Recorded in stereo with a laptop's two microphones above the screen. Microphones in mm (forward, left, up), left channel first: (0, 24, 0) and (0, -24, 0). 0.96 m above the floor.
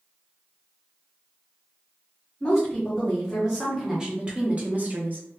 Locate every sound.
2.4 s a woman speaking: 5° left (ahead or behind), 1.4 m; by 5.4 s 45° right (ahead or behind), 0.9 m